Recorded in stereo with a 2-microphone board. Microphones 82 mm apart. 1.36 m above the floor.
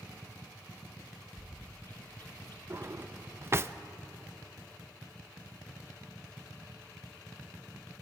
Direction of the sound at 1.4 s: 30° left (ahead or behind).